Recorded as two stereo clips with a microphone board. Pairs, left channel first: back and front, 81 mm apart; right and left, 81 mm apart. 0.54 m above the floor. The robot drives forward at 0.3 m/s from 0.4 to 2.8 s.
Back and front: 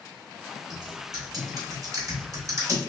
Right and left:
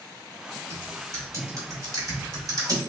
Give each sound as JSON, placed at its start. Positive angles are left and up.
{"t": 0.7, "sound": "typing on a keyboard", "azimuth_deg": 35, "distance_m": 1.7}